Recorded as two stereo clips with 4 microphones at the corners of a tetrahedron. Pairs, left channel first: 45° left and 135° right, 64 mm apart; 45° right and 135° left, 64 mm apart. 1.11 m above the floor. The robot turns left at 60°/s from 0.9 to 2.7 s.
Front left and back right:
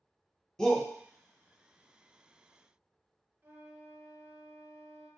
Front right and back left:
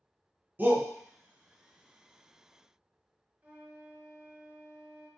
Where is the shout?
120° left, 0.6 m.